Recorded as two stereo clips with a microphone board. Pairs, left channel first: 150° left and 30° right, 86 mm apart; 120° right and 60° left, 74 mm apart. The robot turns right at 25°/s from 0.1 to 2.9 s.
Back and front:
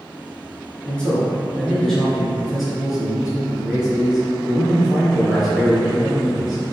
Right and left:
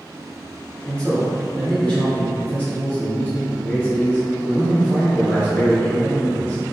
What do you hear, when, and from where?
0.8 s a man speaking: 160° right, 1.2 m; by 6.6 s 110° right, 1.2 m